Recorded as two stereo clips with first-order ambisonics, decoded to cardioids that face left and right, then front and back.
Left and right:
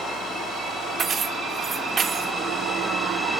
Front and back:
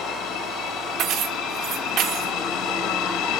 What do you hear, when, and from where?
1.0 s keys jangling: 150° right, 0.6 m